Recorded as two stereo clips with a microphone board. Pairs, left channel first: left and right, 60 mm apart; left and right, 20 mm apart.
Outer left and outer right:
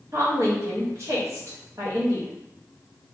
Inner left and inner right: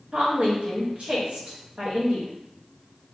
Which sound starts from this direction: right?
A woman speaking, at 0.1 s.